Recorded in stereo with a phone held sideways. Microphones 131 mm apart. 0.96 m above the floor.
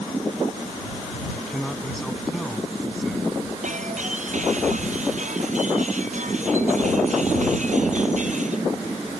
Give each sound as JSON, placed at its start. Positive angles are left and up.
{"t": 1.3, "sound": "a man speaking", "side_deg": 5}
{"t": 3.6, "sound": "breaking glass", "side_deg": -65}